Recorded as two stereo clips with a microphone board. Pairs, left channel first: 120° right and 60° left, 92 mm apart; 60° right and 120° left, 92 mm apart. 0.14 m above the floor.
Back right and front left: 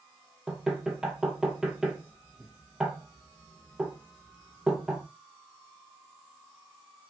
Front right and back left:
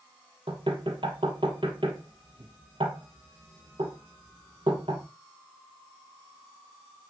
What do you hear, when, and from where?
0.5 s knocking: 140° left, 2.5 m